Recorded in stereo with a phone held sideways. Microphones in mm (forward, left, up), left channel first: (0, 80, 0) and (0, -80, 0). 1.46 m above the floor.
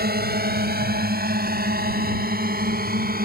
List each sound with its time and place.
0.0 s a drone: 75° right (ahead or behind); by 3.3 s 65° right (ahead or behind)